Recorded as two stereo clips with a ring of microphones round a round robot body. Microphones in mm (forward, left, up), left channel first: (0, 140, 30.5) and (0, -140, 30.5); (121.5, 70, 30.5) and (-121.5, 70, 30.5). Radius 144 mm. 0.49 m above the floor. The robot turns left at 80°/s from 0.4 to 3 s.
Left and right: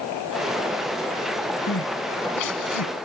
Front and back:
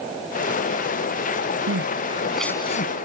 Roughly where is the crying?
Behind left.